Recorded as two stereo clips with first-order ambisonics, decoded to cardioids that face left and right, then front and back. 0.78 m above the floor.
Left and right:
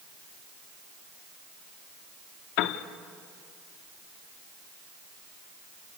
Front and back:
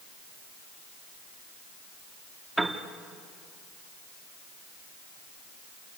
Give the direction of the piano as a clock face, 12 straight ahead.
9 o'clock.